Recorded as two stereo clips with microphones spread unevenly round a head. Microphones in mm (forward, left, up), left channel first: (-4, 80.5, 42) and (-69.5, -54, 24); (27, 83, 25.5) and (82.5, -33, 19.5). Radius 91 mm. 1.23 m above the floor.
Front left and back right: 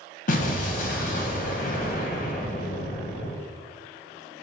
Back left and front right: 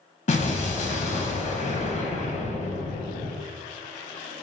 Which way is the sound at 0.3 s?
95° left.